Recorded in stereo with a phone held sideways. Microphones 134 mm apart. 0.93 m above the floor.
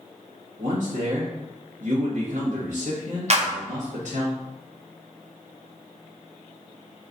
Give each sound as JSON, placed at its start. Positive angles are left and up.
{"t": 0.6, "sound": "a man speaking", "side_deg": -65, "distance_m": 1.2}
{"t": 3.3, "sound": "a clap", "side_deg": -50, "distance_m": 0.7}